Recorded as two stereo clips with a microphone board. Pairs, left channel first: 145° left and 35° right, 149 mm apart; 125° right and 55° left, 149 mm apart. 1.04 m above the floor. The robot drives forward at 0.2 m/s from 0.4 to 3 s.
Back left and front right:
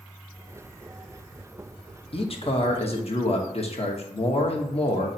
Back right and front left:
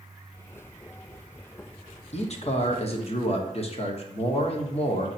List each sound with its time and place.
2.1 s a man speaking: 165° right, 0.6 m; by 5.1 s 170° right, 0.8 m